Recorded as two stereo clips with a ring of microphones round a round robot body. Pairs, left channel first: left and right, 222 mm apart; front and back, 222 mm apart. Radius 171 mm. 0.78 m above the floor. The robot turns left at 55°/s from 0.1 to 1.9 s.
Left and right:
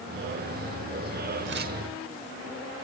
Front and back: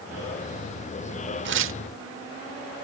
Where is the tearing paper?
145° right; by 1.8 s 160° right.